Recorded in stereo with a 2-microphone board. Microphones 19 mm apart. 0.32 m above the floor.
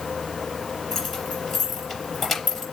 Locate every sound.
0.9 s keys jangling: 5° right (ahead or behind), 4.5 m